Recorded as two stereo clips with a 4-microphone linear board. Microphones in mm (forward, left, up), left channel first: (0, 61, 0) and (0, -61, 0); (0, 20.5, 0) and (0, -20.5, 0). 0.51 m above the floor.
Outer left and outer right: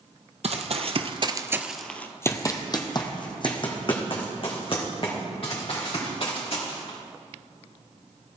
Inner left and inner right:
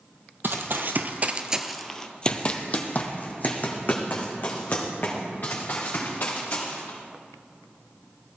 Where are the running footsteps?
65° right (ahead or behind), 1.1 m; by 7.0 s 50° left (ahead or behind), 5 m.